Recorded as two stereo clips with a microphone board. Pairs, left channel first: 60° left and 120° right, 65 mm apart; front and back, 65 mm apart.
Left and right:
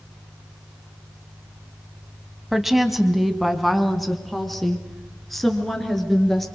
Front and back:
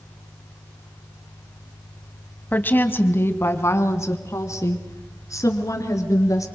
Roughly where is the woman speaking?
Ahead right.